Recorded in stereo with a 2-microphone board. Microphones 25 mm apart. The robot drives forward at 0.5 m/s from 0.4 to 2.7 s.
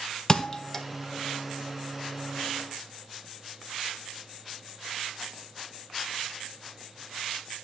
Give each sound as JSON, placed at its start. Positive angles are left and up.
{"t": 0.3, "sound": "a thud", "side_deg": 25, "distance_m": 0.8}